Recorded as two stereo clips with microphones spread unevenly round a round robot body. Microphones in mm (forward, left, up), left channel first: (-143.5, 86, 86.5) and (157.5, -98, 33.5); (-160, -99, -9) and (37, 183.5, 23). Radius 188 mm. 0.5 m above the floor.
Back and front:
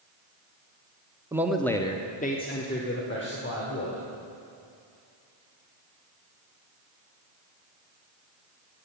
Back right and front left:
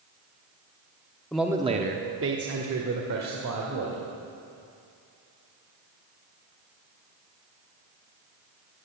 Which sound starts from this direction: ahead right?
A man speaking, at 1.3 s.